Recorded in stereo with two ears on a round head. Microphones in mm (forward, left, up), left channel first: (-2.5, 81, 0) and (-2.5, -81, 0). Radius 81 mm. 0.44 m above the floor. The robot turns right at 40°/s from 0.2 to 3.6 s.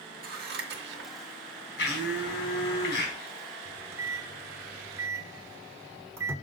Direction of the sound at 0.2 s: 50° right (ahead or behind).